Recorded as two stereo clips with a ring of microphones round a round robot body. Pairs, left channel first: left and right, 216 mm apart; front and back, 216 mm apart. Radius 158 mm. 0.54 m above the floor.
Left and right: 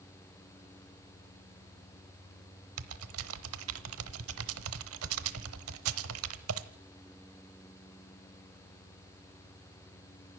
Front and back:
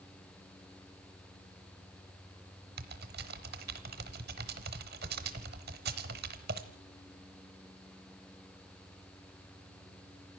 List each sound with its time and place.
2.8 s typing on a keyboard: 120° right, 0.9 m